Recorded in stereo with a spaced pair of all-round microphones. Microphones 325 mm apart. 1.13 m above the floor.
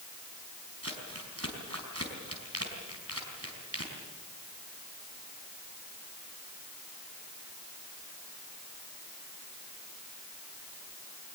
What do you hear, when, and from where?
0.8 s crumpling: 45° right (ahead or behind), 4.5 m